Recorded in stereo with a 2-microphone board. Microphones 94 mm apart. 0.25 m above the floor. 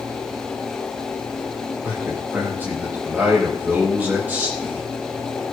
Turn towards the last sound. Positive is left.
turn(degrees=-20)  # may be behind; listen again after turning